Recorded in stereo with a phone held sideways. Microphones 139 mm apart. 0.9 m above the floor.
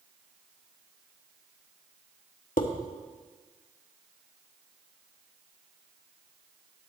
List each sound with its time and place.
2.6 s dishes clattering: 80° left, 1.0 m